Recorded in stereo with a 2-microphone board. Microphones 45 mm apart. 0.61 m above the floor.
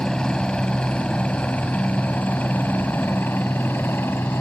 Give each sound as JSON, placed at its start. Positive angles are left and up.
{"t": 0.0, "sound": "a helicopter", "side_deg": 15}